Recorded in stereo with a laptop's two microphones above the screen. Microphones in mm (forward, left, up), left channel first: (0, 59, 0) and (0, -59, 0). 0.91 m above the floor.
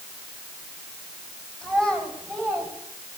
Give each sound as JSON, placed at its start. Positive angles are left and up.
{"t": 1.6, "sound": "a child speaking", "side_deg": -10, "distance_m": 3.5}